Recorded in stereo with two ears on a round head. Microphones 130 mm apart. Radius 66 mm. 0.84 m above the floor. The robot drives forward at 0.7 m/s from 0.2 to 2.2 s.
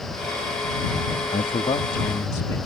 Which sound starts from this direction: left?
A man speaking, at 1.3 s.